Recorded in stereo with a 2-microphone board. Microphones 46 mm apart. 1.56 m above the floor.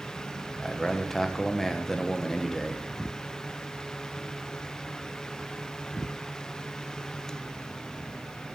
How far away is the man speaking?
About 1.2 m.